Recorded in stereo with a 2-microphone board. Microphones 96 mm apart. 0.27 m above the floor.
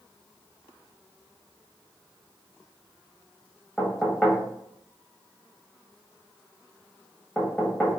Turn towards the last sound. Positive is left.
turn(degrees=10)  # may be behind; listen again after turning